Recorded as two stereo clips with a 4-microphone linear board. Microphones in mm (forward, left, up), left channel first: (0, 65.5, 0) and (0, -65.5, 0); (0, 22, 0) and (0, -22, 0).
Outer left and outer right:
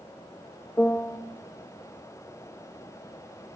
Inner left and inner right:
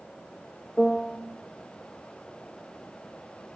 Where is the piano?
10° left (ahead or behind), 0.6 m.